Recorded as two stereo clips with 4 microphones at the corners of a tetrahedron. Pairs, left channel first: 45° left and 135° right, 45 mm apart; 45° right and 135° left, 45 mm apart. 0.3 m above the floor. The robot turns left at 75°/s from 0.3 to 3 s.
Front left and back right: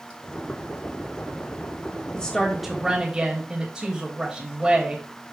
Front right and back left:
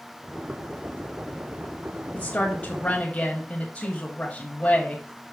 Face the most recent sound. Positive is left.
turn(degrees=-75)